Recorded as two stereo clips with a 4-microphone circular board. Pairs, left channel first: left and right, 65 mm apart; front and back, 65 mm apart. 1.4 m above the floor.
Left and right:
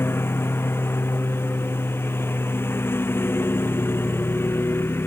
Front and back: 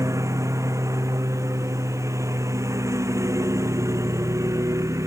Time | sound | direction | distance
0.0 | a lawn mower | 145° left | ?